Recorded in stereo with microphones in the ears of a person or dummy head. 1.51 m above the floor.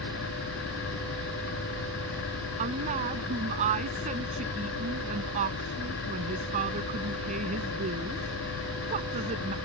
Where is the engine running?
80° left.